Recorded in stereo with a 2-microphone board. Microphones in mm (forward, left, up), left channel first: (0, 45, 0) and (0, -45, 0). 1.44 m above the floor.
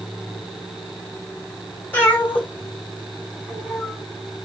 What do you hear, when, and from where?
1.9 s a cat meowing: 25° left (ahead or behind), 2 m; by 4.0 s 5° left (ahead or behind), 2.5 m